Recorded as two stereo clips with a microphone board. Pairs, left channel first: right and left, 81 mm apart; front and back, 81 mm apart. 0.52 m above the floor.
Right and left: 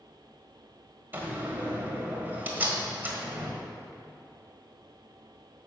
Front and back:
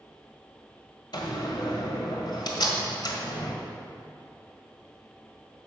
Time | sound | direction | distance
1.1 | a door slam | 25° left | 1.6 m